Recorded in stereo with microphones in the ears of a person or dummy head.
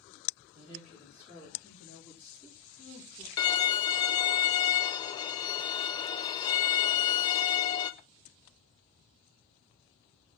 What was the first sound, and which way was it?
A woman speaking, 30° right (ahead or behind).